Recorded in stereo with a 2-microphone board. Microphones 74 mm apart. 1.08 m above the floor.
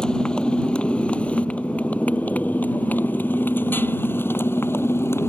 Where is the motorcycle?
10° left (ahead or behind); by 5.3 s 30° left (ahead or behind).